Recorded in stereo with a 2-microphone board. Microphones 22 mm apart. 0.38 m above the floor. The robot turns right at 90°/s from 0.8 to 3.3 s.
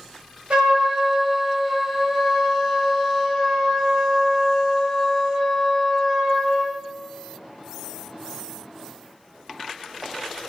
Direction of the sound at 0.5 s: 50° right.